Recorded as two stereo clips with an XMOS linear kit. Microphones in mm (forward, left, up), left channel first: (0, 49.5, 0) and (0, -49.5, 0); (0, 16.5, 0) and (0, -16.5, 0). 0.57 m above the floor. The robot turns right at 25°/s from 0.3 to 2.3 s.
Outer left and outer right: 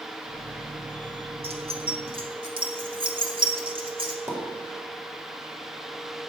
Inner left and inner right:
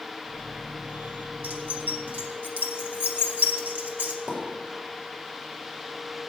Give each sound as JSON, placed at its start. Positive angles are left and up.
{"t": 1.4, "sound": "keys jangling", "side_deg": -65, "distance_m": 1.1}
{"t": 4.3, "sound": "a pop", "side_deg": -30, "distance_m": 2.5}